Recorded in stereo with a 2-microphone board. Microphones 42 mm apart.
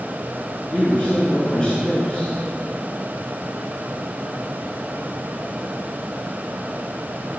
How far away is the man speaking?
About 4 m.